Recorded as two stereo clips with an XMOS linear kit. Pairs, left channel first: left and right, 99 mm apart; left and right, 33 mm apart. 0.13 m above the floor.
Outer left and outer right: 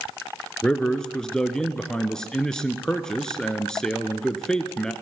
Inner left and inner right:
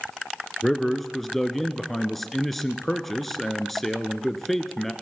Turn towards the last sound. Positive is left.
turn(degrees=5)  # may be behind; listen again after turning